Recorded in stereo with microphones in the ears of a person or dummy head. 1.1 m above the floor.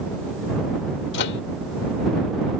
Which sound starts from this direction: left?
A microwave, at 1.1 s.